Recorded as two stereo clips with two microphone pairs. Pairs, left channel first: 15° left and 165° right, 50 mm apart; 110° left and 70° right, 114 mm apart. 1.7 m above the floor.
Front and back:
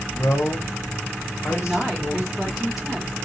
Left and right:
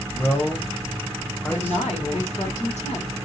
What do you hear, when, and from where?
0.1 s a man speaking: 35° left, 1.2 m
1.5 s a woman speaking: 110° left, 1.9 m